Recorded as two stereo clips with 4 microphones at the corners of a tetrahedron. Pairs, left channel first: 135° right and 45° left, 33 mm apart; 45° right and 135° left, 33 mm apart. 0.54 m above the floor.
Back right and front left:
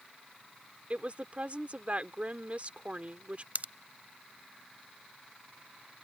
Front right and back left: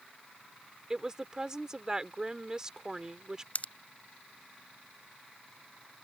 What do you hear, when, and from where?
0.9 s a woman speaking: 70° left
3.5 s a pop: straight ahead